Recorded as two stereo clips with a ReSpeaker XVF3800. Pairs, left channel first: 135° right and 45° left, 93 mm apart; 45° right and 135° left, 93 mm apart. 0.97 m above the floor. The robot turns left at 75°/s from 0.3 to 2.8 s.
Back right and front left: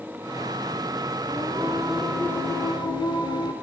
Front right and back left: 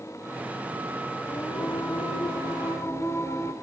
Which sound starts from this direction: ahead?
Singing, at 1.3 s.